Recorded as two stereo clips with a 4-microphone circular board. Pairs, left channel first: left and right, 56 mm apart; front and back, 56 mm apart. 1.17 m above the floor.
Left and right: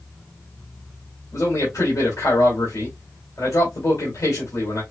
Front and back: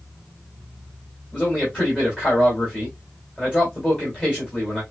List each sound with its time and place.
1.3 s a man speaking: 65° left, 3 m